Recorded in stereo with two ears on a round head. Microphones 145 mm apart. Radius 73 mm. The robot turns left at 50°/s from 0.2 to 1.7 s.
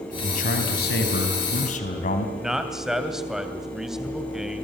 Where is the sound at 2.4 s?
5° right (ahead or behind), 2.5 m.